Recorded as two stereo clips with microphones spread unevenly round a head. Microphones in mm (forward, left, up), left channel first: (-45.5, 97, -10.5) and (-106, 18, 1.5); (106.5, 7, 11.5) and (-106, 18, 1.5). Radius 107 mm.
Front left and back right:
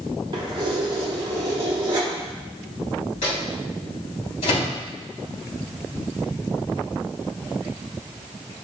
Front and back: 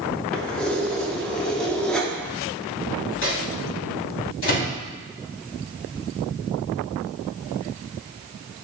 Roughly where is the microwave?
Ahead left.